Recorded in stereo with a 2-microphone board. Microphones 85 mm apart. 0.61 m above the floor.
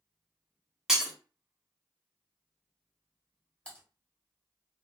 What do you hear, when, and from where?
0.9 s breaking glass: 5° right (ahead or behind), 0.7 m
3.6 s typing on a keyboard: 10° left (ahead or behind), 1.2 m